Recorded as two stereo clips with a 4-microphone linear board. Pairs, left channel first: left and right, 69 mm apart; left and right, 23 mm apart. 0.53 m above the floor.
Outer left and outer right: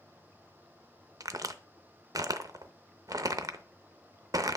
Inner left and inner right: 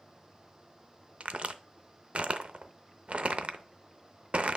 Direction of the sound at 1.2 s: 60° right (ahead or behind).